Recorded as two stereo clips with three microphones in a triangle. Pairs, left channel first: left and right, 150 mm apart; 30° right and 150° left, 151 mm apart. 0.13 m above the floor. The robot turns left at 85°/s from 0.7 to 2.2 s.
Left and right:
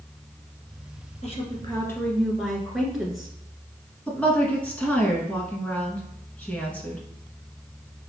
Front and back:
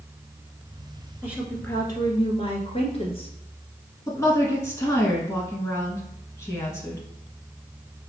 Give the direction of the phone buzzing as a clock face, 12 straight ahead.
I don't hear a phone buzzing.